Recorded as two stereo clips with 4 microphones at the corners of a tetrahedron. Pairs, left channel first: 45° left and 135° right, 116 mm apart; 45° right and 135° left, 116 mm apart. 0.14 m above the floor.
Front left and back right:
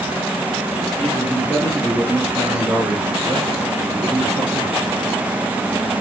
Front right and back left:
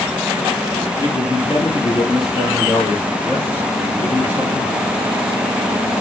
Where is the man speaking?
30° right, 1.7 m; by 4.8 s 95° right, 3 m.